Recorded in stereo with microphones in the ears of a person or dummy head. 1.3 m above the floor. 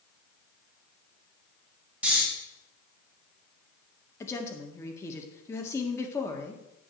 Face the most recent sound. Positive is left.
turn(degrees=15)  # may be behind; listen again after turning